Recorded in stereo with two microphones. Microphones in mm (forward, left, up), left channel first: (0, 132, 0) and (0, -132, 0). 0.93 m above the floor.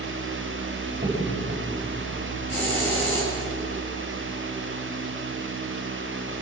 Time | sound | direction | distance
0.9 | a crack | 30° right (ahead or behind) | 6.5 m
2.5 | a hiss | 25° right (ahead or behind) | 9 m